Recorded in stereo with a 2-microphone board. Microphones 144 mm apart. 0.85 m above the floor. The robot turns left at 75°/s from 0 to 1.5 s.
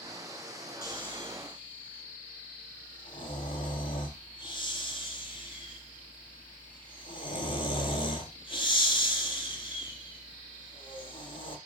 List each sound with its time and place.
0.8 s snoring: 85° left, 5.5 m; by 11.6 s 35° left (ahead or behind), 5.5 m